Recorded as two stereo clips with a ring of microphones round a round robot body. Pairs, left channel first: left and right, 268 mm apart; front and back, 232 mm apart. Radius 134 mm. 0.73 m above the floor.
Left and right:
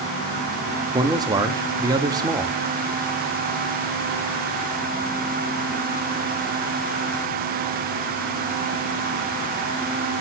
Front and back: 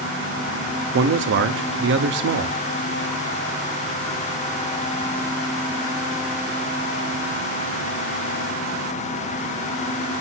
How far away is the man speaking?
About 0.8 m.